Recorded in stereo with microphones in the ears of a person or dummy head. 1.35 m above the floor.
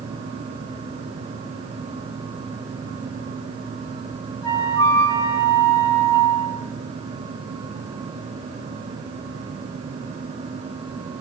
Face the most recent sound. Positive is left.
turn(degrees=15)  # may be behind; listen again after turning